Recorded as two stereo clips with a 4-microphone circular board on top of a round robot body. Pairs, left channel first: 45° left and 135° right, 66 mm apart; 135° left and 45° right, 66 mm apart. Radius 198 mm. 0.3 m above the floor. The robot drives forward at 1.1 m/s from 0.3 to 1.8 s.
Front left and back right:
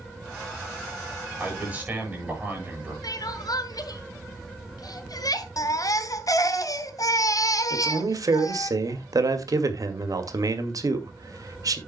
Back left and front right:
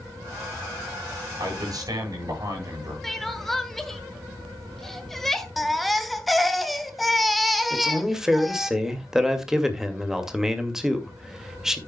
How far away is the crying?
About 1.6 m.